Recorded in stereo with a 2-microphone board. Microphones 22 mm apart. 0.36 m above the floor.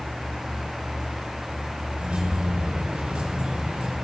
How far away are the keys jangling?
About 4.5 m.